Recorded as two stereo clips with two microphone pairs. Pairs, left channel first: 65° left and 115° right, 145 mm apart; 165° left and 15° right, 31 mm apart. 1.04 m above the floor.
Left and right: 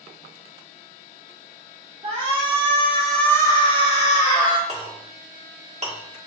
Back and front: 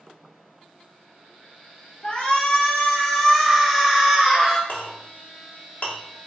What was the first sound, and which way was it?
A shout, 145° right.